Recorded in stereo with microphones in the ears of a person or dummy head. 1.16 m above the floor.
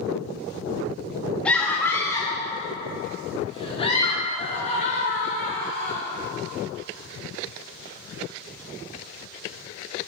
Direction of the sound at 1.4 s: 10° left (ahead or behind).